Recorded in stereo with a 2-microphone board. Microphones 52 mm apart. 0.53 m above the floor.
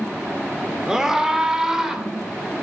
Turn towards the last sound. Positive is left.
turn(degrees=-10)  # may be behind; listen again after turning